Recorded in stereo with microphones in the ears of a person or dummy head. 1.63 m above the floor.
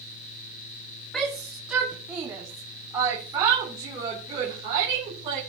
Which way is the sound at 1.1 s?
Centre (ahead or behind).